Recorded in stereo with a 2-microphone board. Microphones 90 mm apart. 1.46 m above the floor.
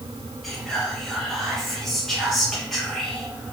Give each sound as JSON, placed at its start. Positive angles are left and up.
{"t": 0.4, "sound": "whispering", "side_deg": 0, "distance_m": 1.4}